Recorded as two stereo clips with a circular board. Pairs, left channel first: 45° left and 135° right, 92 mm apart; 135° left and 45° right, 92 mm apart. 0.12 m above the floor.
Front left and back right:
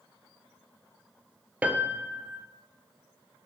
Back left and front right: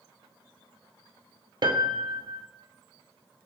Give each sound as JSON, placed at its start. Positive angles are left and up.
{"t": 1.6, "sound": "a piano", "azimuth_deg": -65, "distance_m": 0.8}